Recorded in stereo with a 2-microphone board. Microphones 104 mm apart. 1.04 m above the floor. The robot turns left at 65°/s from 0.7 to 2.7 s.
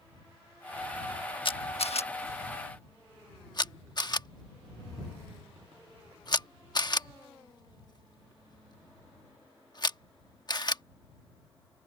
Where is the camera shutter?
55° left (ahead or behind); by 10.8 s 45° left (ahead or behind).